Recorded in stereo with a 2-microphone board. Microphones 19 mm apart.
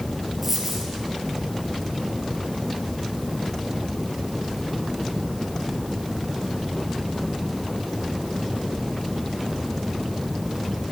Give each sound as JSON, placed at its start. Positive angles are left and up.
{"t": 0.4, "sound": "a dropped coin", "side_deg": 0, "distance_m": 4.5}